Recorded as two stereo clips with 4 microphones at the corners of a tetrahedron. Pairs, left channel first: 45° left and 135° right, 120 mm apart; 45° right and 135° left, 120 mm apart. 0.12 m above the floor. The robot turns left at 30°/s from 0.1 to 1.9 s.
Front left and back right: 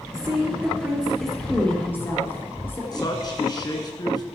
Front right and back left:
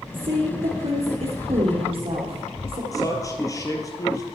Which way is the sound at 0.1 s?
165° left.